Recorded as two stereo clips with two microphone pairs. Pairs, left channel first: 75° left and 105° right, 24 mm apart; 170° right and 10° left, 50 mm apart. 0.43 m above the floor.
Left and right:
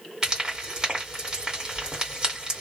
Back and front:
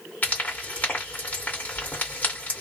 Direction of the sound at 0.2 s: 150° right.